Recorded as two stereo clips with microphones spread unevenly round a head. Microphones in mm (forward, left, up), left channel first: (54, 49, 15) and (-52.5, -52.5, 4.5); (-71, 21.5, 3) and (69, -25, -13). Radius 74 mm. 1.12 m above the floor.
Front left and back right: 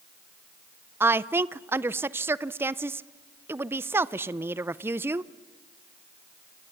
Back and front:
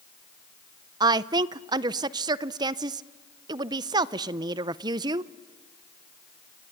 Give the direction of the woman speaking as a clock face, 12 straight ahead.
2 o'clock.